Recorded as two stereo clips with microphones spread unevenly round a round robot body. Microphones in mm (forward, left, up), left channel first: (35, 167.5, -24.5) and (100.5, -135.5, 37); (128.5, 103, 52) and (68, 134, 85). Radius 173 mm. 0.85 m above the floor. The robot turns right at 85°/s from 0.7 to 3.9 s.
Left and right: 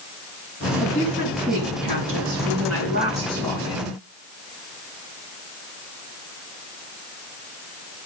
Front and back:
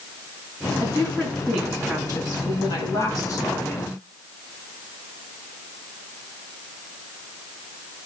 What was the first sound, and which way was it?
A woman speaking, 160° left.